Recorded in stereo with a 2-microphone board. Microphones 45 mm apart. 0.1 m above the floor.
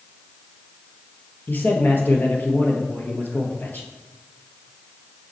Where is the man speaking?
45° left (ahead or behind), 1.7 m.